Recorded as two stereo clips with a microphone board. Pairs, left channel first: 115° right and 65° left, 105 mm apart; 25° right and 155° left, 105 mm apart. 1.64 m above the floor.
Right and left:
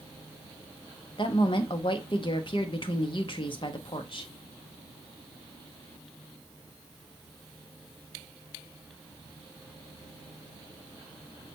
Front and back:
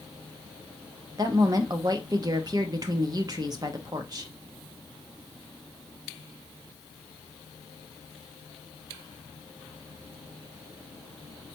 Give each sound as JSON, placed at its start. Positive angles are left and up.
{"t": 1.2, "sound": "a woman speaking", "azimuth_deg": -150, "distance_m": 0.8}